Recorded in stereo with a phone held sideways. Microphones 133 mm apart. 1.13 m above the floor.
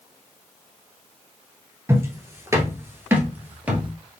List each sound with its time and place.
1.9 s footsteps: 20° right (ahead or behind), 1.2 m; by 3.9 s 10° right (ahead or behind), 1.5 m